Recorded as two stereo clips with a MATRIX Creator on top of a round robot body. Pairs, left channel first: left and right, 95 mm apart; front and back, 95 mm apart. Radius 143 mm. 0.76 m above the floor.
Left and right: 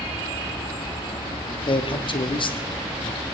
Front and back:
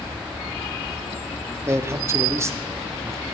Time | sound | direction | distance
1.7 | a man speaking | 120° left | 1.3 m